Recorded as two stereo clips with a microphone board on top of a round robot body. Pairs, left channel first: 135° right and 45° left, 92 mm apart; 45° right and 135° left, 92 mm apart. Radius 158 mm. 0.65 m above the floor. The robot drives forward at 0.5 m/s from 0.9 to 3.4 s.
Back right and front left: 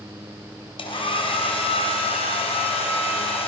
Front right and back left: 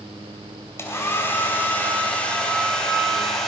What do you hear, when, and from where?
0.8 s a hair dryer: 110° right, 2.5 m; by 3.5 s 130° right, 3 m